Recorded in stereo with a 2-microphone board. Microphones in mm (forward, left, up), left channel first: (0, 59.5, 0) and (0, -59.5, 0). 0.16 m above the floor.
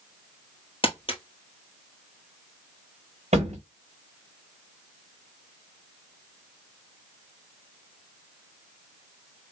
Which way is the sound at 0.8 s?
50° left (ahead or behind).